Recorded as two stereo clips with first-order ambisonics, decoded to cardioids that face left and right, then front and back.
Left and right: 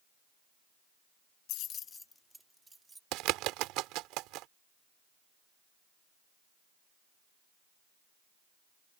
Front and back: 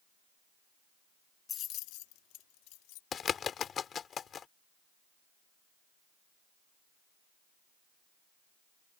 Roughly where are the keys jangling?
Left.